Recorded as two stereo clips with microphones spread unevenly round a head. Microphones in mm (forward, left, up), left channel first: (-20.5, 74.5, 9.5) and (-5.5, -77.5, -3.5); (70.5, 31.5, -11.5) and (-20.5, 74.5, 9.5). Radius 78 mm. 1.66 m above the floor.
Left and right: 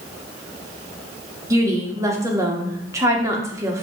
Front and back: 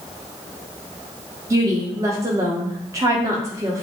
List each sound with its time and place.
1.5 s a woman speaking: 155° right, 0.9 m